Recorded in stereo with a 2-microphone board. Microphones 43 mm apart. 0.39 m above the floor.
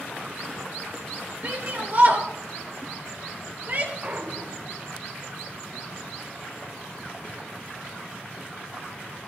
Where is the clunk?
35° right (ahead or behind), 1.7 m.